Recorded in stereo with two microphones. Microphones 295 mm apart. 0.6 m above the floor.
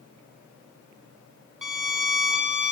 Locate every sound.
1.6 s a violin: 85° right, 1.9 m